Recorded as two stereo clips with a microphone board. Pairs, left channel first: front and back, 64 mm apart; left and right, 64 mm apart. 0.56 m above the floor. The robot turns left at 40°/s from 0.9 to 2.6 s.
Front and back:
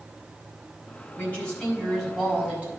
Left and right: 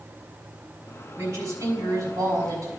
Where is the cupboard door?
No cupboard door in this recording.